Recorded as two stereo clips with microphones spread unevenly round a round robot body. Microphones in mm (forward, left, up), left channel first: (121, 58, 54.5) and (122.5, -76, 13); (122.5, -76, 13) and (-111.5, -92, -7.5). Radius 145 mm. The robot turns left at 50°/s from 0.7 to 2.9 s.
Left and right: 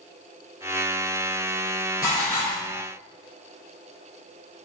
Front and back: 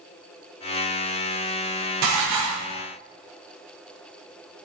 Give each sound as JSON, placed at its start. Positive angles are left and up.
{"t": 2.0, "sound": "dishes clattering", "azimuth_deg": -175, "distance_m": 0.8}